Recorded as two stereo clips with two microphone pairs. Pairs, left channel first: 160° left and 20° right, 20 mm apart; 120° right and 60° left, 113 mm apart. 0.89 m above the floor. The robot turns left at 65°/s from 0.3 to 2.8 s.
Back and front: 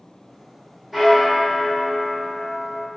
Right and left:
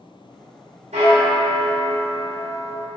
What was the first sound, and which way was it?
A bell, 65° left.